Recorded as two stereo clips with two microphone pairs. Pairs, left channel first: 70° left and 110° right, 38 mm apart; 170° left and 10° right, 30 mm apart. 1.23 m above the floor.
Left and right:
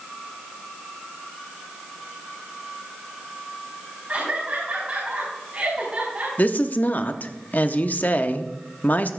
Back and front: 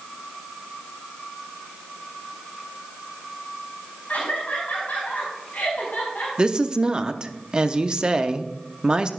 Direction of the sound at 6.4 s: 45° left.